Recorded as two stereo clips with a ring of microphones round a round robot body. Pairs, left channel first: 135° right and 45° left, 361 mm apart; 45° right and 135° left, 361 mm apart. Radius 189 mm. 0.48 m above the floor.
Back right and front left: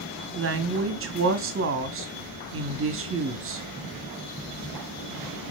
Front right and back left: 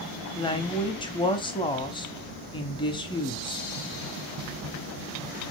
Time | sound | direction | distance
0.3 | a woman speaking | 25° left | 0.8 m